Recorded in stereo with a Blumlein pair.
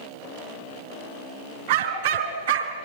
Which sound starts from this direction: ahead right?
A dog barking, at 1.7 s.